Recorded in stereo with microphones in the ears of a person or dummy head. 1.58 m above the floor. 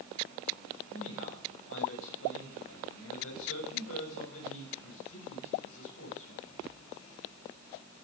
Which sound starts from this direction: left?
A man speaking, at 0.9 s.